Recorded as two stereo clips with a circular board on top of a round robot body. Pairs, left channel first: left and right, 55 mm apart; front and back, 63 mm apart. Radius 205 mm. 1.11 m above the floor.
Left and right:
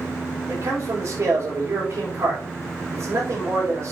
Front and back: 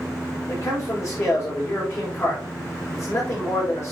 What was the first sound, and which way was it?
A man speaking, 50° right.